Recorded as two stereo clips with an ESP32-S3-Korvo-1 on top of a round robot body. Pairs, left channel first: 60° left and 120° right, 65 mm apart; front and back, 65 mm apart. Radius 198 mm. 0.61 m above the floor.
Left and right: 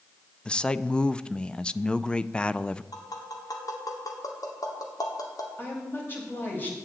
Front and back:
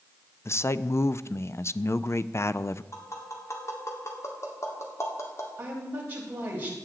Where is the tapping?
40° left, 2 m.